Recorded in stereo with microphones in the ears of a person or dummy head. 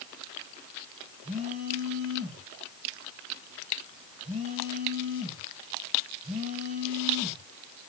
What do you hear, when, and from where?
1.2 s a phone buzzing: 35° right (ahead or behind), 7.5 m